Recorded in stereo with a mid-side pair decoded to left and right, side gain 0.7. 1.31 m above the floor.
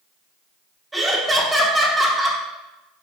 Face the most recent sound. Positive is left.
turn(degrees=-15)